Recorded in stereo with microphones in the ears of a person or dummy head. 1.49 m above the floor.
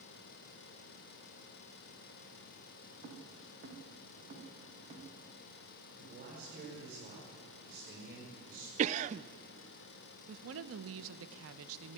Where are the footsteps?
60° right (ahead or behind), 4 m; by 5.0 s 45° right (ahead or behind), 6.5 m.